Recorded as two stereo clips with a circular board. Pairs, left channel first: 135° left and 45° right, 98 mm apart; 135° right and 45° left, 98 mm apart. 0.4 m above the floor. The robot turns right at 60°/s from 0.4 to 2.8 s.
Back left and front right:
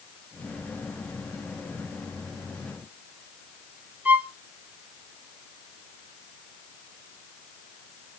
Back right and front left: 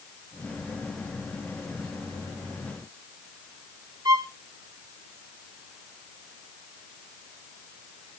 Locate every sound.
4.0 s a violin: 20° left, 1.0 m